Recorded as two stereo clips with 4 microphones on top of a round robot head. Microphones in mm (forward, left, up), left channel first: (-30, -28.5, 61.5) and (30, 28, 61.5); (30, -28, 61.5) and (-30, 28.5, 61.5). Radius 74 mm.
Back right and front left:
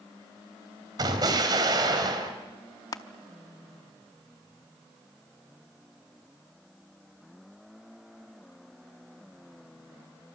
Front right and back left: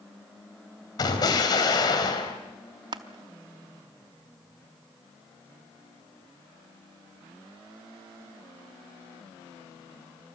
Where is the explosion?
Straight ahead, 4 m.